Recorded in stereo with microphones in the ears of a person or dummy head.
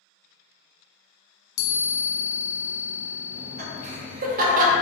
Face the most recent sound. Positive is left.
turn(degrees=-45)  # may be behind; listen again after turning